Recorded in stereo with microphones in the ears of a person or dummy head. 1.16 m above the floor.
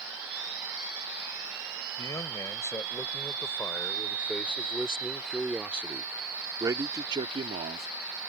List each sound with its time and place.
2.0 s a man speaking: 20° left (ahead or behind); by 7.9 s 40° right (ahead or behind)